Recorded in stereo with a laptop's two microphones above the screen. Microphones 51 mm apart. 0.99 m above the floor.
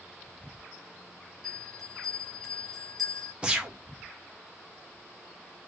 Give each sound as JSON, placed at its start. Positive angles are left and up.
{"t": 1.4, "sound": "a bell", "side_deg": 0, "distance_m": 1.5}
{"t": 3.4, "sound": "a gunshot", "side_deg": -20, "distance_m": 1.0}